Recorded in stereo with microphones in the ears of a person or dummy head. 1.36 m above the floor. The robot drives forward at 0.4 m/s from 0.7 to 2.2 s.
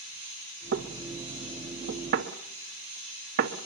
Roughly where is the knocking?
Right.